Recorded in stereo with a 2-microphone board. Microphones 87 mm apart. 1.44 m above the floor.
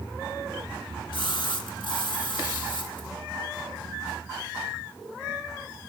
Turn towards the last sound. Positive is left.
turn(degrees=65)  # may be behind; listen again after turning